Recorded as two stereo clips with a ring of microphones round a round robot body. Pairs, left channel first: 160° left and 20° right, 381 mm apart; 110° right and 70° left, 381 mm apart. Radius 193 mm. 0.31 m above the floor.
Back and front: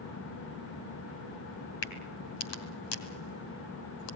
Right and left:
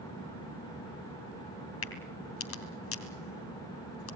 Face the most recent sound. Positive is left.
turn(degrees=-170)